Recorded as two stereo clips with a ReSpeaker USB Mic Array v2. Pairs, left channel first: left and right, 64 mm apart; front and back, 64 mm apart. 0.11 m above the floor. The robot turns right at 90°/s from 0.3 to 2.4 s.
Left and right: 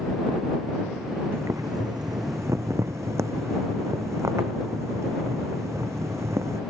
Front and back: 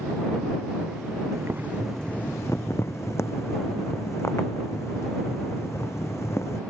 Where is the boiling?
145° right; by 6.6 s 50° right.